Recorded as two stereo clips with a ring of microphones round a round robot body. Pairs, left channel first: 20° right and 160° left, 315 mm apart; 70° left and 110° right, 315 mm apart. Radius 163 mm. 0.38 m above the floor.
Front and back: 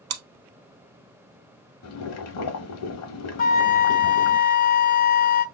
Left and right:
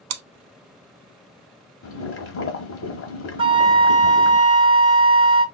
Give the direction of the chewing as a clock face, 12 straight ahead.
5 o'clock.